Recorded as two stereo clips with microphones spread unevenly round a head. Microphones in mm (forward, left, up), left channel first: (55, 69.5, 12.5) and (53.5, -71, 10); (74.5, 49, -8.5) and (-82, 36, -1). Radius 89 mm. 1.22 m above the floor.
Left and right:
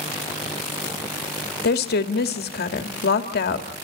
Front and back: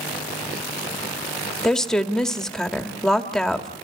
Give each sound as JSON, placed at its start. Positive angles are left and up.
{"t": 1.6, "sound": "a woman speaking", "azimuth_deg": 90, "distance_m": 2.0}